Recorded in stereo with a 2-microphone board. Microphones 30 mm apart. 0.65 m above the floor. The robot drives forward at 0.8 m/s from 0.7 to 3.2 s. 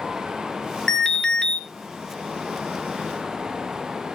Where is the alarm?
20° left (ahead or behind), 1.3 m; by 1.6 s 25° left (ahead or behind), 1.0 m.